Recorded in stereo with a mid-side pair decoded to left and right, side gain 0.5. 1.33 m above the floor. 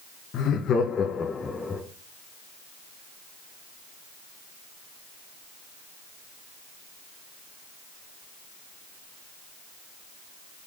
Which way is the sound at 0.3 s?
60° left.